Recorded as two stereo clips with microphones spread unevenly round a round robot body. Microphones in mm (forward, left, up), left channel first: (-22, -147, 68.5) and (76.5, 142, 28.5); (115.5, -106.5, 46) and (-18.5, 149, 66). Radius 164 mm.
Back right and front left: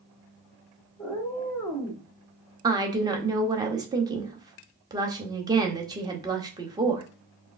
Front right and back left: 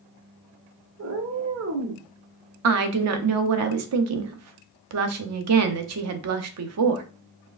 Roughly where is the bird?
No bird in this recording.